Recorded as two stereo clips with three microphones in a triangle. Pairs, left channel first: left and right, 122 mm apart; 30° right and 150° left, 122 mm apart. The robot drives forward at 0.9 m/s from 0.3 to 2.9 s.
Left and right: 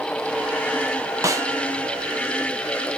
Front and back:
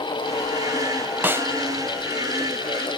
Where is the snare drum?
140° right, 1.0 m; by 1.5 s 150° right, 1.1 m.